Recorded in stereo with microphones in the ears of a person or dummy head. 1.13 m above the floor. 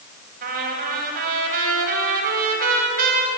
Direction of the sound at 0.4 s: 50° right (ahead or behind).